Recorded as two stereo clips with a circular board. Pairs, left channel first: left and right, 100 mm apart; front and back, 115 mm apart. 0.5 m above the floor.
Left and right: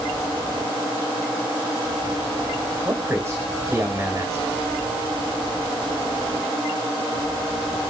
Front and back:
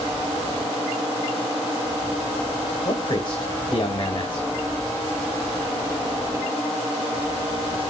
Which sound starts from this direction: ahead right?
A man speaking, at 2.9 s.